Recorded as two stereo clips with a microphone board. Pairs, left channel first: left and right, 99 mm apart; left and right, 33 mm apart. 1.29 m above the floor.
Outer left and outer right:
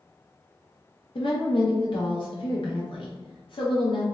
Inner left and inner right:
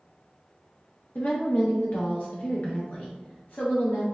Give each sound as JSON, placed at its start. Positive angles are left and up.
{"t": 1.1, "sound": "a woman speaking", "side_deg": 55, "distance_m": 0.7}